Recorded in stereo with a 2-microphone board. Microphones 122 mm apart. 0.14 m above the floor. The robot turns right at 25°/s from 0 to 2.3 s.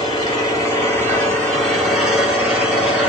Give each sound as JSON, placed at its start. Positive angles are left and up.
{"t": 0.0, "sound": "an engine running", "azimuth_deg": 130, "distance_m": 1.9}